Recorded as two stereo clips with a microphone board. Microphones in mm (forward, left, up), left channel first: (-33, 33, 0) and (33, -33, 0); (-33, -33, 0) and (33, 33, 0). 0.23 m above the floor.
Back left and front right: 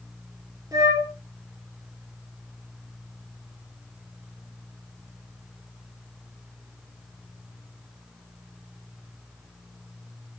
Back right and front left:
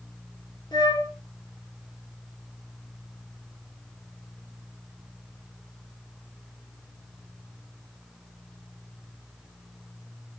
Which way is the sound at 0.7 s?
95° right.